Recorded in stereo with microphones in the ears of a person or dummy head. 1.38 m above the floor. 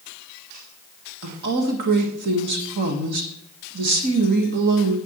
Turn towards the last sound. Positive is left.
turn(degrees=-55)  # may be behind; listen again after turning